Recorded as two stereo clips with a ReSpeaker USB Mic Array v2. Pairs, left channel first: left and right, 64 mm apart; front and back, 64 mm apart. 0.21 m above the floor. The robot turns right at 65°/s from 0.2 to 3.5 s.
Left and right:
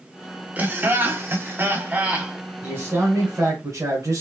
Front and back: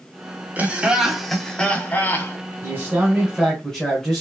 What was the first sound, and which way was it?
Laughter, 135° right.